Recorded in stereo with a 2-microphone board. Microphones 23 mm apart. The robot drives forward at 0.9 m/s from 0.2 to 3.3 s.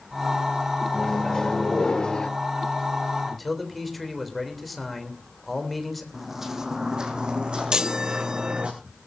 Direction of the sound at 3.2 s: 5° left (ahead or behind).